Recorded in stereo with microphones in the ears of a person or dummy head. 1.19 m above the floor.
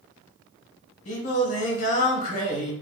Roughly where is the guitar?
No guitar in this recording.